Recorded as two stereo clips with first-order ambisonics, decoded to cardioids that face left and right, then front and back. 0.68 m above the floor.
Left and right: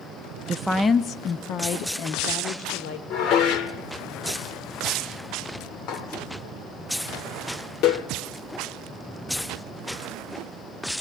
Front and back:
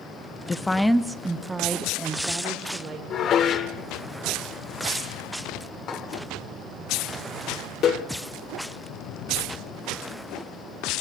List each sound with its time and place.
0.5 s a woman speaking: 50° right, 0.6 m; by 3.0 s 110° left, 1.9 m
3.1 s dishes clattering: 50° left, 1.2 m